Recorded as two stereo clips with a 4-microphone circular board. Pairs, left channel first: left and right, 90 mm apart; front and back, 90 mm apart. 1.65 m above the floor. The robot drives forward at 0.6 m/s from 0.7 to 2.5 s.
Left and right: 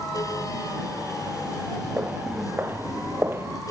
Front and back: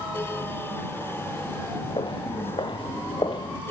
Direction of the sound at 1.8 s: 20° right.